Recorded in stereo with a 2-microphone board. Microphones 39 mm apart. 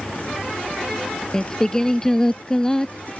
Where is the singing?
15° left (ahead or behind).